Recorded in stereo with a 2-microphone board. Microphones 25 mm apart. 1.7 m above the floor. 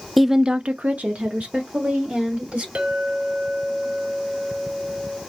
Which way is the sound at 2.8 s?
60° right (ahead or behind).